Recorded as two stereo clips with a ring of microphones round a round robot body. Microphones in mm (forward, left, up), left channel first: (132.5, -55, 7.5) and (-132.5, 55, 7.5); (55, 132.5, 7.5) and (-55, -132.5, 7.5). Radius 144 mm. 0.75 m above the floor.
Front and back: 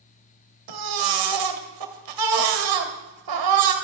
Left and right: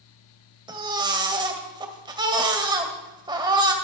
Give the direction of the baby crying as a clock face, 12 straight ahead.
6 o'clock.